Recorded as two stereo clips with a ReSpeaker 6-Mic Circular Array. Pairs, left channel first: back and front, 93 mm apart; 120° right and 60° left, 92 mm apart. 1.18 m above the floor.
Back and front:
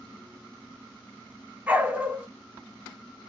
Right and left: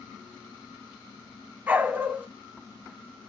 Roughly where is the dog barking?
Ahead left.